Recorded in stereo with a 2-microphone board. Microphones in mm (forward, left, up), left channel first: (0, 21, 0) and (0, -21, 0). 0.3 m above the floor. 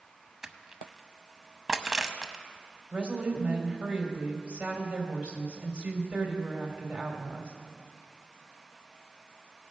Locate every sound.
0.4 s crushing: 10° right (ahead or behind), 0.6 m
2.9 s a woman speaking: 25° right (ahead or behind), 1.8 m